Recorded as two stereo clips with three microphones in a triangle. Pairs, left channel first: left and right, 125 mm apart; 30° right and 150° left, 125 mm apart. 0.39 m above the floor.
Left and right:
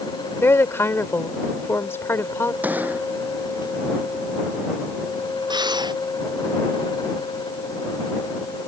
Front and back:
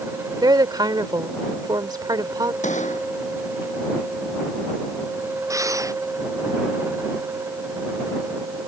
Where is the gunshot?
15° right.